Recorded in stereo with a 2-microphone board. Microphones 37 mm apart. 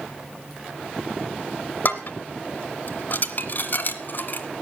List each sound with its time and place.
1.9 s dishes clattering: 50° left (ahead or behind), 1.5 m